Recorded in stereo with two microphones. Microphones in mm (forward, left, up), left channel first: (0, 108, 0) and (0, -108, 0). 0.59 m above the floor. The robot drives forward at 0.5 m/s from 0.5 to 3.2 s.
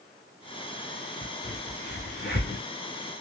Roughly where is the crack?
Left.